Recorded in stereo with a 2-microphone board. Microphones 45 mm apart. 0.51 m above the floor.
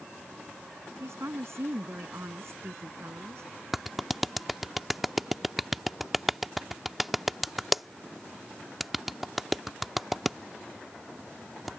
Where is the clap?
5° right (ahead or behind).